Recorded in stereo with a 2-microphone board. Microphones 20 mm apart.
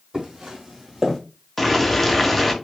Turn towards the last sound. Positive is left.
turn(degrees=5)  # may be behind; listen again after turning